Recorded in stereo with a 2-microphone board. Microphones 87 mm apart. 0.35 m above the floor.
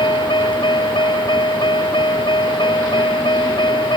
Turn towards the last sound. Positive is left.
turn(degrees=65)  # may be behind; listen again after turning